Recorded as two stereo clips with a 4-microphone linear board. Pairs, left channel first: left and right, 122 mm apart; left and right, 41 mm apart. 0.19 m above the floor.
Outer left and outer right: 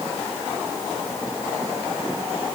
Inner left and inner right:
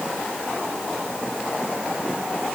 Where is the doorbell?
No doorbell in this recording.